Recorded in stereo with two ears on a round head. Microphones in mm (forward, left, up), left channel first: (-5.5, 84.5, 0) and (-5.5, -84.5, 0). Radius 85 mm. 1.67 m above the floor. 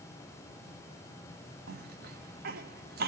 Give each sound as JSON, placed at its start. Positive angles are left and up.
{"t": 1.7, "sound": "a cough", "side_deg": -50, "distance_m": 1.0}